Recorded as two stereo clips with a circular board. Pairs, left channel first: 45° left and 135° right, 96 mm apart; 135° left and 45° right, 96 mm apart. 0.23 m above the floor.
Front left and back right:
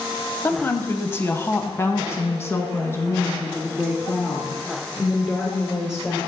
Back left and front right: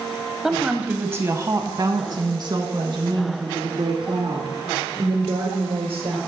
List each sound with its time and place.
0.4 s a woman speaking: 35° left, 1.0 m; by 6.2 s 20° right, 3.5 m